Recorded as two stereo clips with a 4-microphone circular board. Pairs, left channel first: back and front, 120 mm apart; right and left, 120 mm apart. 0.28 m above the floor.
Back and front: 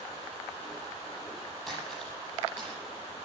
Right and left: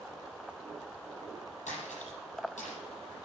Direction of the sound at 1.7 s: 95° right.